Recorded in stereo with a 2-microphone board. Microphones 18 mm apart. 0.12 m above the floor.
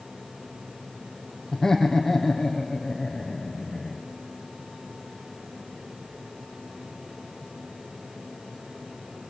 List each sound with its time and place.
1.5 s laughter: 25° left (ahead or behind), 3.5 m; by 4.0 s 10° left (ahead or behind), 7 m